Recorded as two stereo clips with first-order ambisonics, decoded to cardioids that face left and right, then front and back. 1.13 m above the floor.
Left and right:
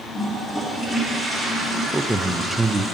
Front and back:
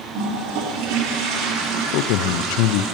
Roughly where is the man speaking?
Ahead.